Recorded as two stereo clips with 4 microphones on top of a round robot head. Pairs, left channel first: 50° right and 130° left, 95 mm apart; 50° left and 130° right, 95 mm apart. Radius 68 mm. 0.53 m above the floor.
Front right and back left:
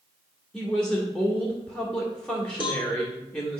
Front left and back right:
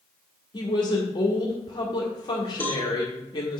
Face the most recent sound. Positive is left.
turn(degrees=-20)